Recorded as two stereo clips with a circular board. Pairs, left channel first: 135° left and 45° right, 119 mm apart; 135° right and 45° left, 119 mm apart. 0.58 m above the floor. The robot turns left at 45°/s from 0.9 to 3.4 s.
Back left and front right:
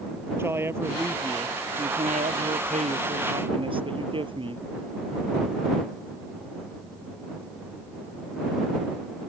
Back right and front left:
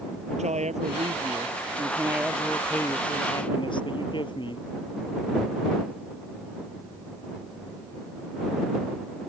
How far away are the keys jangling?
I don't hear keys jangling.